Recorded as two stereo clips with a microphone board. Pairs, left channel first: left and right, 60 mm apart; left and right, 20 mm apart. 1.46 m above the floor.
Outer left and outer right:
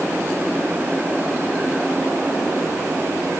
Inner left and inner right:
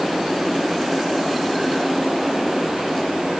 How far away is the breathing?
I don't hear breathing.